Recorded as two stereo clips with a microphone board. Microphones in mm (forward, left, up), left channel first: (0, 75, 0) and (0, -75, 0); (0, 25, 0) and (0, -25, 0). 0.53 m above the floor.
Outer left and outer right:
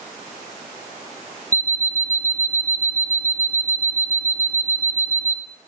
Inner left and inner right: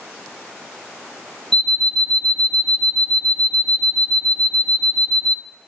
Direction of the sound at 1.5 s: 10° left (ahead or behind).